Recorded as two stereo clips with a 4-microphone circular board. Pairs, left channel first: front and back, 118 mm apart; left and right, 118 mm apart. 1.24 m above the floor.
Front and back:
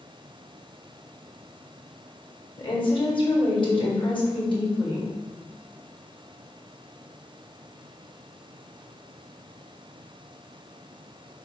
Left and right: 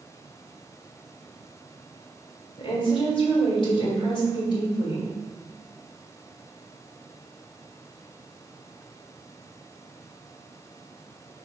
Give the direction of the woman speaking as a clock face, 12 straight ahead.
11 o'clock.